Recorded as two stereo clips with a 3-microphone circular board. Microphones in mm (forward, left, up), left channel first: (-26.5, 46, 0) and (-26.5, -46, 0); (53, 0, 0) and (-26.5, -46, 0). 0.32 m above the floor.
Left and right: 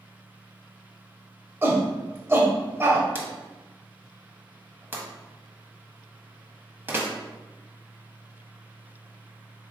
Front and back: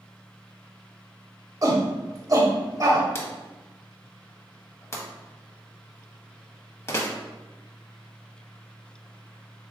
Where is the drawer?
30° right, 0.8 m.